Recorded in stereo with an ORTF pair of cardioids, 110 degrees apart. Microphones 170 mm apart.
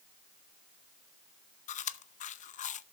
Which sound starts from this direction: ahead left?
Chewing, at 1.7 s.